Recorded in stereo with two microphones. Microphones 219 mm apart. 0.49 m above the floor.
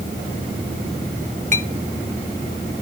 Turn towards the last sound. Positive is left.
turn(degrees=-35)  # may be behind; listen again after turning